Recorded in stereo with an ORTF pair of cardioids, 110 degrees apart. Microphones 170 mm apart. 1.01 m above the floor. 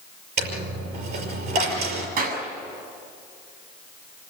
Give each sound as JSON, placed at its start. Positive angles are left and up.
{"t": 0.4, "sound": "a dropped coin", "azimuth_deg": -65, "distance_m": 5.5}
{"t": 2.2, "sound": "a clap", "azimuth_deg": -65, "distance_m": 7.5}